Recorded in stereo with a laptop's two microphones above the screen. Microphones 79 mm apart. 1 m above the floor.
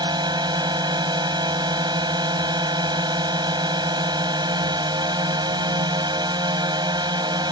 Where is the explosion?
I don't hear an explosion.